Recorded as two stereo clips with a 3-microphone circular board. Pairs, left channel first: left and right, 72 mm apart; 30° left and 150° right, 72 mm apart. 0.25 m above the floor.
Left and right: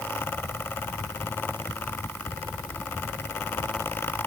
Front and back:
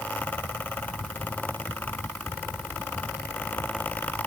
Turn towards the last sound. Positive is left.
No sound to turn to.